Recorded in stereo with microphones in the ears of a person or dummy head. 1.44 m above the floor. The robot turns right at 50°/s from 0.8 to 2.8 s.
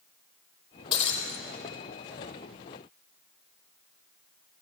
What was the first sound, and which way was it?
Breaking glass, 20° left (ahead or behind).